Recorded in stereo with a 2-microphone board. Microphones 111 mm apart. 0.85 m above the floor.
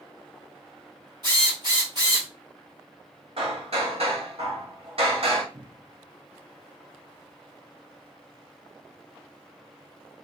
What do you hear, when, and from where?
1.2 s a drill: 40° right (ahead or behind), 1.7 m
3.4 s hammering: 60° right (ahead or behind), 1.1 m
5.5 s a cupboard door: 35° right (ahead or behind), 0.8 m